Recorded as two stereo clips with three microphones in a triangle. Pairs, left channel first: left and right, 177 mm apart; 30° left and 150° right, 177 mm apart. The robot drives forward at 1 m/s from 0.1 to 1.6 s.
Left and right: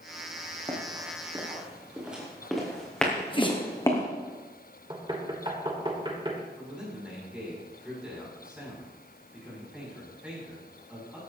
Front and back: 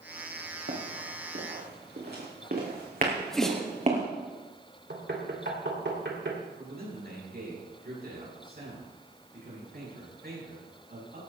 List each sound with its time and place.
0.7 s running footsteps: 155° right, 4 m; by 4.0 s 160° left, 3.5 m
3.1 s a sneeze: 115° left, 1.1 m
4.9 s knocking: 155° right, 2 m
6.6 s a man speaking: 175° right, 7 m